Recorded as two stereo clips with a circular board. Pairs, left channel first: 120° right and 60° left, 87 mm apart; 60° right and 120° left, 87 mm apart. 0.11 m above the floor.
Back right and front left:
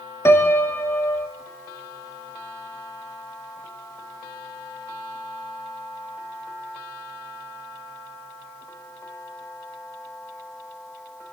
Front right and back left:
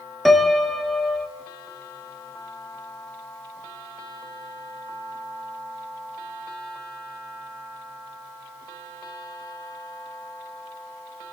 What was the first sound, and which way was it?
A piano, 150° right.